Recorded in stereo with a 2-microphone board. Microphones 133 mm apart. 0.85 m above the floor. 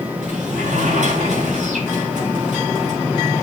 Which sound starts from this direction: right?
A sliding door, at 0.2 s.